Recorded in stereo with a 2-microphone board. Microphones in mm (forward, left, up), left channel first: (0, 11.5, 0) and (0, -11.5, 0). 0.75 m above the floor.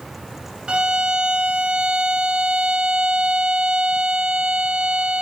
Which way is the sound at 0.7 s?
40° right (ahead or behind).